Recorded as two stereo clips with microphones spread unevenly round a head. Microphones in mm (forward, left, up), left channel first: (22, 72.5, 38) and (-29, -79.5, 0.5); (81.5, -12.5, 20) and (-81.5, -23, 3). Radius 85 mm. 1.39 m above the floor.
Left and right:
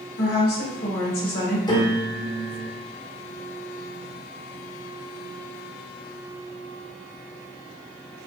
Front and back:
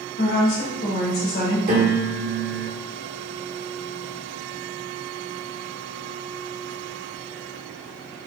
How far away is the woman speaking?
About 2 m.